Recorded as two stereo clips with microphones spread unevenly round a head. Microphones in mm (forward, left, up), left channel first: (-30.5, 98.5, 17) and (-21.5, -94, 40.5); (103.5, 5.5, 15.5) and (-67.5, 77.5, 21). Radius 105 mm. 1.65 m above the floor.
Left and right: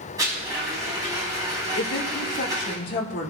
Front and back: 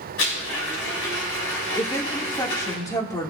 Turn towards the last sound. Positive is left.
turn(degrees=50)